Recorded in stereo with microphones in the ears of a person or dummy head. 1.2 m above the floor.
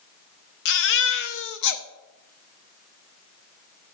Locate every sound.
0.7 s a baby crying: 55° left (ahead or behind), 0.9 m